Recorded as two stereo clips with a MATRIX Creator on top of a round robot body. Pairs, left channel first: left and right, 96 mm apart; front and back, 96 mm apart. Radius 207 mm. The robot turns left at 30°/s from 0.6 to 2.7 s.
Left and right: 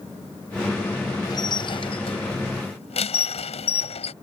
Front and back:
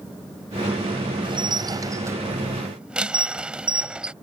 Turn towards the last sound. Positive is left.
turn(degrees=100)